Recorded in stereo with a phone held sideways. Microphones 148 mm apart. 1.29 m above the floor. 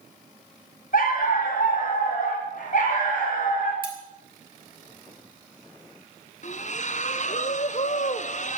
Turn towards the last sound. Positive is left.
turn(degrees=55)  # may be behind; listen again after turning